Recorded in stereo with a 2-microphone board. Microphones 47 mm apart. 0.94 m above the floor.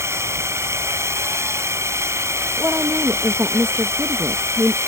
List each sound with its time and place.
0.0 s a drone: 80° right
2.6 s a woman speaking: 60° right (ahead or behind)